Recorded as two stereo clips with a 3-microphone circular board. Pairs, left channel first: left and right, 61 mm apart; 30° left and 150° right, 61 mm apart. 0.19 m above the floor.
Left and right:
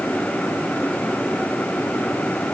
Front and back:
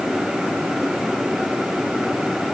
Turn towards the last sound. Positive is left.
No sound to turn to.